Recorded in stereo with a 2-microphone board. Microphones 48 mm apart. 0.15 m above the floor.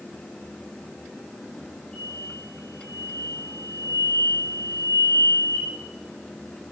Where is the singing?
I don't hear singing.